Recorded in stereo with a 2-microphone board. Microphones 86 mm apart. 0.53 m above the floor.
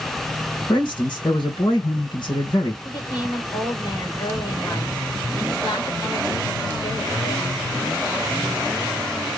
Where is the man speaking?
60° left (ahead or behind), 2 m.